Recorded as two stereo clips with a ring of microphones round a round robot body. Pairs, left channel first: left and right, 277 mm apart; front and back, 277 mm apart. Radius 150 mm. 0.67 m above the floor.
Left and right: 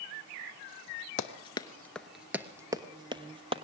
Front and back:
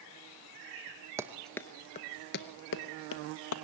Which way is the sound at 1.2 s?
115° left.